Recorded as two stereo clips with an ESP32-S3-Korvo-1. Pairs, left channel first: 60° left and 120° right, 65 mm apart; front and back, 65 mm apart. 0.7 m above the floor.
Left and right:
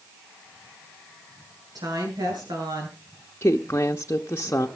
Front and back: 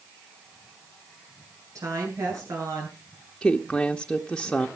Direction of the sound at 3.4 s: 75° left.